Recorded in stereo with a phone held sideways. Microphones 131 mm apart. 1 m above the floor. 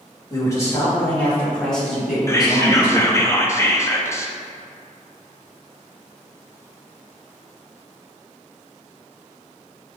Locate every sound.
0.3 s a man speaking: 30° left (ahead or behind), 1.5 m; by 3.1 s 10° right (ahead or behind), 2.5 m
2.3 s whispering: 20° left (ahead or behind), 0.6 m